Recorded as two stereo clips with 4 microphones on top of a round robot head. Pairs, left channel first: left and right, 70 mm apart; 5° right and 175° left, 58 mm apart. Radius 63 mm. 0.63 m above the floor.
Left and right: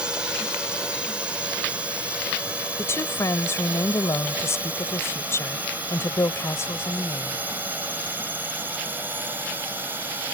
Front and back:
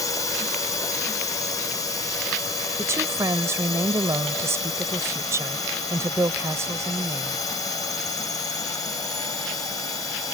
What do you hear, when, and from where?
0.0 s a drone: 10° right; by 10.3 s 20° right
2.8 s a woman speaking: 140° left